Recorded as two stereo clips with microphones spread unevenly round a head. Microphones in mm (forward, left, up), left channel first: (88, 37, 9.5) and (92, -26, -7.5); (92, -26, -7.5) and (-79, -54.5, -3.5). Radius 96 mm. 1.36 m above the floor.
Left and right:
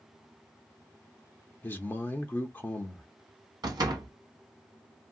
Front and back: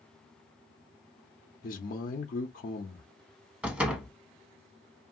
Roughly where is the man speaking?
Ahead left.